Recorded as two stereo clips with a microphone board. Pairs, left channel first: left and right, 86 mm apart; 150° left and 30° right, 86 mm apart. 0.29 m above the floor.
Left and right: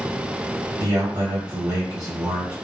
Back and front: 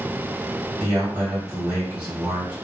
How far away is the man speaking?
About 1.4 m.